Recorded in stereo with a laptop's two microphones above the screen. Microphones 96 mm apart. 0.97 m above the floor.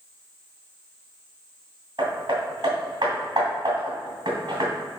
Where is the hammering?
50° right (ahead or behind), 2 m.